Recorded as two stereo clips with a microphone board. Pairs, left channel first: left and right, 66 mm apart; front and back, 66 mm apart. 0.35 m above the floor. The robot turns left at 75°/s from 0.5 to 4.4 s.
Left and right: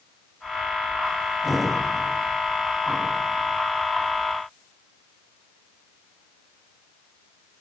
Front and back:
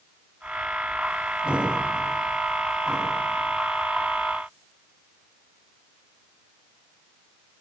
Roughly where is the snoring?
I don't hear snoring.